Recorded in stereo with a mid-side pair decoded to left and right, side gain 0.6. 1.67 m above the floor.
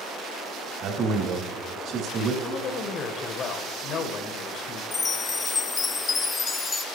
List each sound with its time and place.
0.8 s a man speaking: 55° right, 3.5 m
2.4 s a woman speaking: 50° left, 1.5 m
4.9 s a chime: 25° left, 0.6 m